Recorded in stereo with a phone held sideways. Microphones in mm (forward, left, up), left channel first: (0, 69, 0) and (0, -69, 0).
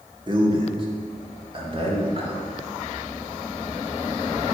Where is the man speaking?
35° right (ahead or behind), 1.9 m; by 2.4 s 40° right (ahead or behind), 3.5 m.